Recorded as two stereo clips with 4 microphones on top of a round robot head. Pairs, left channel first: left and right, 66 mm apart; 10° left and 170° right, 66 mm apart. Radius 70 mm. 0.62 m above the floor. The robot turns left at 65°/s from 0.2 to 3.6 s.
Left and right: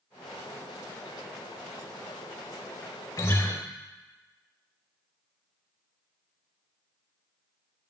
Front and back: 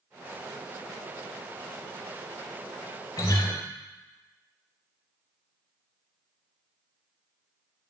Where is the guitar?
45° left, 0.7 m; by 3.5 s 20° left, 0.7 m.